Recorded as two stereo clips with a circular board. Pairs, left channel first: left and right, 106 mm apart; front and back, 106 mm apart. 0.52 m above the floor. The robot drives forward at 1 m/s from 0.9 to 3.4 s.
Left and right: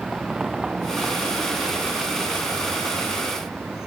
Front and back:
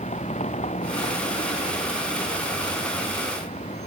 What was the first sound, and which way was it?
A vehicle, 5° right.